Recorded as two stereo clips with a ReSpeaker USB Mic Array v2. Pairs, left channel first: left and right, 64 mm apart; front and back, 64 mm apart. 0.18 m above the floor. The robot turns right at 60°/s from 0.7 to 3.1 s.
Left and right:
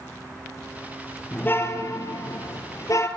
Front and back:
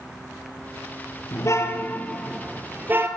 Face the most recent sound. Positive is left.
turn(degrees=135)